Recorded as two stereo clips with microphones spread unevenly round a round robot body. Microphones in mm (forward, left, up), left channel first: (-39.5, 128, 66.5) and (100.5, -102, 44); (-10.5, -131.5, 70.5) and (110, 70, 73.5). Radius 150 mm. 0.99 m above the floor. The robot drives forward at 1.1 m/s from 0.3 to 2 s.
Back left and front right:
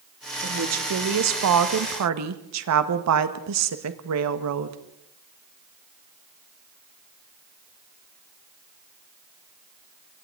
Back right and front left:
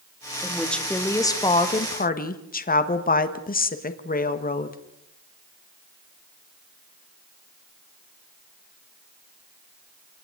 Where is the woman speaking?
30° right, 2.5 m; by 4.8 s 70° right, 1.6 m.